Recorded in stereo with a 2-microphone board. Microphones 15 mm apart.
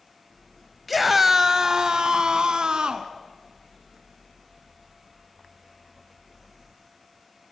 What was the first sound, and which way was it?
A scream, 5° right (ahead or behind).